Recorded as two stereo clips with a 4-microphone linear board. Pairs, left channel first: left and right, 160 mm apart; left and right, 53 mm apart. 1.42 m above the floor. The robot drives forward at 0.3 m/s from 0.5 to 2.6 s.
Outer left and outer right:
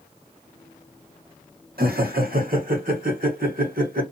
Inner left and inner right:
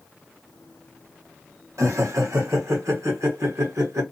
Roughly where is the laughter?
Right.